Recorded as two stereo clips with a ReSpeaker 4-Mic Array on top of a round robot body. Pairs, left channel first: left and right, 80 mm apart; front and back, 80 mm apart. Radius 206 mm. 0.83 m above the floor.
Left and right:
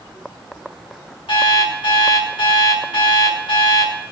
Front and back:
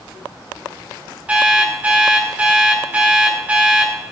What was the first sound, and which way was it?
An alarm clock, 110° left.